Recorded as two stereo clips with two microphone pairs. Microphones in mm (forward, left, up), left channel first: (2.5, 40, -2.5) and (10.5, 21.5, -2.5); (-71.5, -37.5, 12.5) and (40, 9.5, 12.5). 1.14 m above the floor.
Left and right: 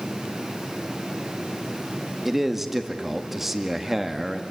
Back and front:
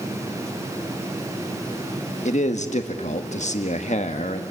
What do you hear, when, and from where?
2.2 s a man speaking: 140° right, 1.7 m